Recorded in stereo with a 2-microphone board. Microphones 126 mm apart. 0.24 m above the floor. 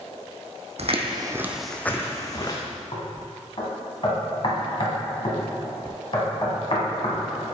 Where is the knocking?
50° left (ahead or behind), 1.4 m.